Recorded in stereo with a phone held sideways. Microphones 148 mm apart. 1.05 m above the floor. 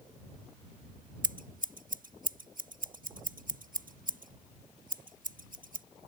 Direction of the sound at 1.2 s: 65° right (ahead or behind).